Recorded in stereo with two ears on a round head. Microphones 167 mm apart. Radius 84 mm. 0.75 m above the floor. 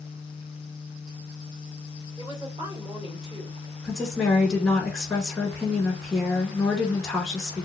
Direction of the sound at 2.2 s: 20° right (ahead or behind).